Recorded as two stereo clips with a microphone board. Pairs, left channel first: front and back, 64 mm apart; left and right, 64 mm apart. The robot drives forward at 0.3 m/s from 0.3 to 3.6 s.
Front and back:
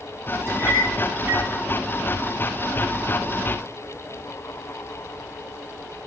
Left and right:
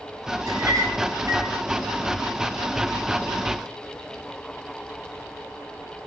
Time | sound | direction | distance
0.5 | a clink | 130° right | 5 m